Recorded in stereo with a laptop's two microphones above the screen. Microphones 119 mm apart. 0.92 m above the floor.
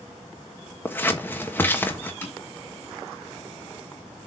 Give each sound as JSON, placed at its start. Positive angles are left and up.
{"t": 0.8, "sound": "scissors", "side_deg": 15, "distance_m": 1.2}
{"t": 2.2, "sound": "tapping", "side_deg": 20, "distance_m": 1.9}